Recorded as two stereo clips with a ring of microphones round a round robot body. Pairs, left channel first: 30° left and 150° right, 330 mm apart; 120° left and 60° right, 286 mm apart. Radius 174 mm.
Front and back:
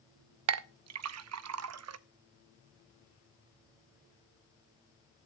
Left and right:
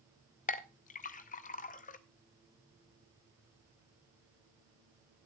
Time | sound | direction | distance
0.5 | a clink | straight behind | 0.6 m